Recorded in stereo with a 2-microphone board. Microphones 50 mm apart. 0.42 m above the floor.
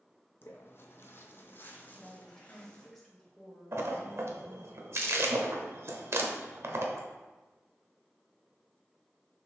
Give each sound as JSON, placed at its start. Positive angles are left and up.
{"t": 0.4, "sound": "footsteps", "side_deg": 45, "distance_m": 0.7}
{"t": 1.9, "sound": "a woman speaking", "side_deg": 5, "distance_m": 1.4}
{"t": 3.7, "sound": "a splash", "side_deg": -60, "distance_m": 0.6}